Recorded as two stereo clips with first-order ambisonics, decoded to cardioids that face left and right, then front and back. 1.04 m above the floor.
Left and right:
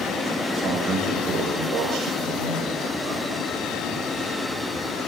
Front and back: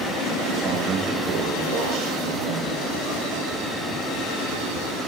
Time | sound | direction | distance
0.5 | a man speaking | 155° right | 6.5 m